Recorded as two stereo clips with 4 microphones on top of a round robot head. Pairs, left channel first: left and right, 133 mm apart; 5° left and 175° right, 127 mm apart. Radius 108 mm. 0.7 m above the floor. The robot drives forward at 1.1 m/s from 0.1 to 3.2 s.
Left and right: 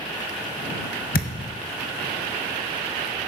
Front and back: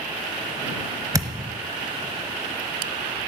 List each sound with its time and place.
1.1 s a thud: 120° left, 1.2 m; by 1.6 s 135° left, 1.5 m